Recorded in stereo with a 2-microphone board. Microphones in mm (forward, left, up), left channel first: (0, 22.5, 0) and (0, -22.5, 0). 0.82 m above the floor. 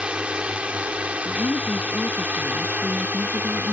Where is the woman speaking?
85° left.